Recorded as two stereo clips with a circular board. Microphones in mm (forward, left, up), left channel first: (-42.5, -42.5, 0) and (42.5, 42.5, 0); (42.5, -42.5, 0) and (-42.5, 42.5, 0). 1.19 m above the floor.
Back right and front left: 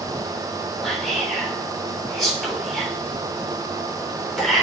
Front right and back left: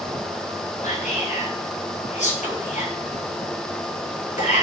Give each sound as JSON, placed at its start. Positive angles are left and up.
{"t": 0.8, "sound": "whispering", "azimuth_deg": -50, "distance_m": 3.0}